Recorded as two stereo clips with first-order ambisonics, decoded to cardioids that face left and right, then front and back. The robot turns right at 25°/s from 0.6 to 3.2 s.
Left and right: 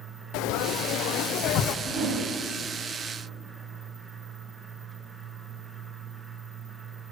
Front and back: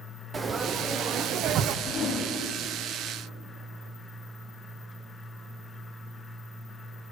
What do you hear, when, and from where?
0.3 s frying: 110° left, 0.6 m; by 1.8 s 140° left, 0.6 m
1.9 s a whoosh: 75° right, 2.5 m; by 2.2 s 65° right, 2.5 m